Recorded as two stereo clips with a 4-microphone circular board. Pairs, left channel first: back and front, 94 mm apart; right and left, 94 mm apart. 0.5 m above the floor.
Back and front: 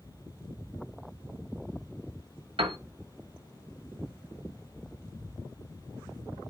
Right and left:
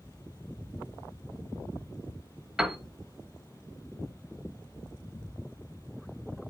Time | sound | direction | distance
2.6 | a piano | 5° left | 0.9 m